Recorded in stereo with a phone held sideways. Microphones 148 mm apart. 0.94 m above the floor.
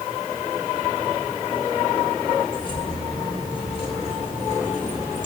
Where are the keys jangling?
30° left (ahead or behind), 3.5 m; by 5.3 s 55° left (ahead or behind), 2.5 m.